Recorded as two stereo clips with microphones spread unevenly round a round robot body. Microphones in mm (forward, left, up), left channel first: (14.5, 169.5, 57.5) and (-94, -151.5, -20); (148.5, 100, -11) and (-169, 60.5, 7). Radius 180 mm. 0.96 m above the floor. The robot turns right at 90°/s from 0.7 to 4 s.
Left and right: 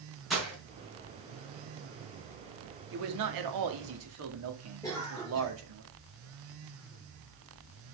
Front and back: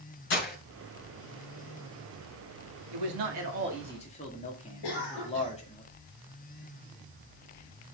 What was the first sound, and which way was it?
Breaking glass, 15° right.